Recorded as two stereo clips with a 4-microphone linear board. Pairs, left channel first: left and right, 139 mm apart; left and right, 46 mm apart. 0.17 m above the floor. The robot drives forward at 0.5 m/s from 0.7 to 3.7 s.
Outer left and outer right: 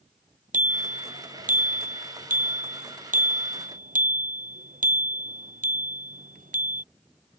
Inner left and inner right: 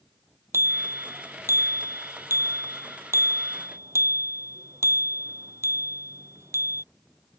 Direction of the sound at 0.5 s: 70° right (ahead or behind).